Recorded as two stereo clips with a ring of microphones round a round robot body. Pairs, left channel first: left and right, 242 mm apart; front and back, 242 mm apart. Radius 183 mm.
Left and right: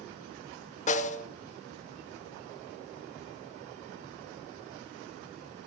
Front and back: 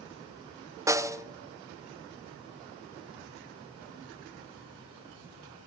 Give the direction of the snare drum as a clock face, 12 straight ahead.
8 o'clock.